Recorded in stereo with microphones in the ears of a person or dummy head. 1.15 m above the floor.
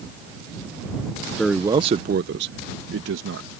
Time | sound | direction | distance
1.4 | a man speaking | 5° left (ahead or behind) | ?